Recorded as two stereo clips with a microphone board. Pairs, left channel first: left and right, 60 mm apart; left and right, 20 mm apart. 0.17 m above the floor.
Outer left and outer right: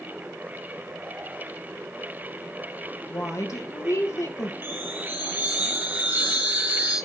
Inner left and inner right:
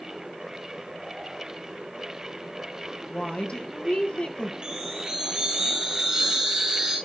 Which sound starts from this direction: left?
A woman speaking, at 3.1 s.